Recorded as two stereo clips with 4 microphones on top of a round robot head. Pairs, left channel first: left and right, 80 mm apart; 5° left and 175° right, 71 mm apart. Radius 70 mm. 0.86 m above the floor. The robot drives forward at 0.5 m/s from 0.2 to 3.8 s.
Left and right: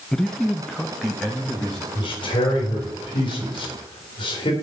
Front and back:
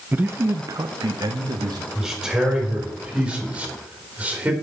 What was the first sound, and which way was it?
A man speaking, 165° left.